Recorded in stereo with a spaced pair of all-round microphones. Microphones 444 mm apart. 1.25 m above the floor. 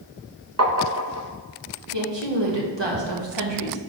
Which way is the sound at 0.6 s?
35° right (ahead or behind).